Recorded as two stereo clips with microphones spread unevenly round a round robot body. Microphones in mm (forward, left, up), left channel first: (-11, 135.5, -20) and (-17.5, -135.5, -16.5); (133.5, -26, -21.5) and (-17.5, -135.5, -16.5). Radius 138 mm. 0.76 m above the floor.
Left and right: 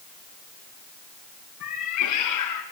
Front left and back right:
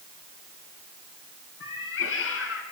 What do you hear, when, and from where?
1.6 s a cat meowing: 55° left, 4 m; by 2.6 s 65° left, 4 m